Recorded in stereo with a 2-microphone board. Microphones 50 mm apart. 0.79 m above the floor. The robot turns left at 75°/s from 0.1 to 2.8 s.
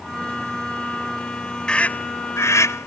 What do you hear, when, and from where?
1.7 s a scream: 20° left (ahead or behind); by 2.9 s 70° left (ahead or behind)